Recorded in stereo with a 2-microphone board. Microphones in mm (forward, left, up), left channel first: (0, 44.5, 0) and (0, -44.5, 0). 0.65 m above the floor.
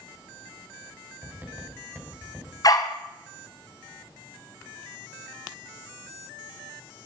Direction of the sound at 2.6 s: 45° left (ahead or behind).